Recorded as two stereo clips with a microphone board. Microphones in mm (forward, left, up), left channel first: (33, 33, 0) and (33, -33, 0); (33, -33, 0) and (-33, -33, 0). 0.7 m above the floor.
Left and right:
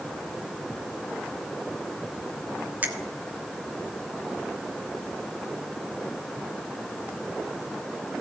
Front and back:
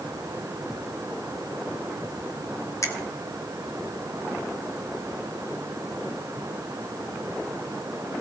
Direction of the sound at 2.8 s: 30° right.